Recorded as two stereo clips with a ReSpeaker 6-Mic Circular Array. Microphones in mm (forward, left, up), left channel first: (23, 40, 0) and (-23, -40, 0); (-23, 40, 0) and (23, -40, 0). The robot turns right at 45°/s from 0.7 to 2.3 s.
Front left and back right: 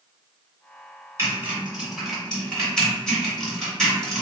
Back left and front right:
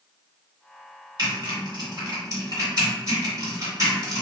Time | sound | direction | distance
1.2 | typing on a keyboard | 70° right | 1.9 m